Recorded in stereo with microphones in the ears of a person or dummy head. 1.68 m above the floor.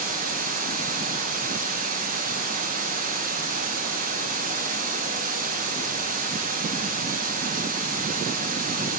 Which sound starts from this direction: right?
Running water, at 0.0 s.